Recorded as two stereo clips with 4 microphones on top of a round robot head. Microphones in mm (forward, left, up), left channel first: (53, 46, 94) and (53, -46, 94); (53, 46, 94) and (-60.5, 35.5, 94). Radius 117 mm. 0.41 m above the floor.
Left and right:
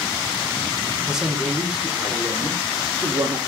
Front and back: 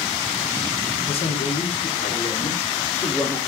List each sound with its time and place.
1.1 s a man speaking: 5° right, 1.8 m; by 3.4 s 65° right, 1.5 m